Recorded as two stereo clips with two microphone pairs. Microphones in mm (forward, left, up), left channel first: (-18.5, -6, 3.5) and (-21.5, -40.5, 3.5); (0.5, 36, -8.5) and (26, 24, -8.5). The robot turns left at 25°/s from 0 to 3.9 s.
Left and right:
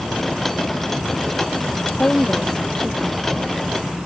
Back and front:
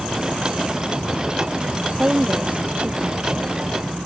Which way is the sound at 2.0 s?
30° left.